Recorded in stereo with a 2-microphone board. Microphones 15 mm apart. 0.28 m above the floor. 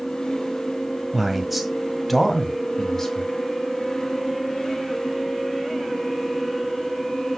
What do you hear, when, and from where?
1.1 s a man speaking: 15° right (ahead or behind), 1.5 m; by 3.3 s 35° left (ahead or behind), 2.5 m